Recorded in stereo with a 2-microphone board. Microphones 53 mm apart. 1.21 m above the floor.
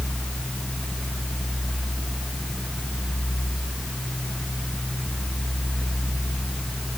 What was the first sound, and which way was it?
Only background noise.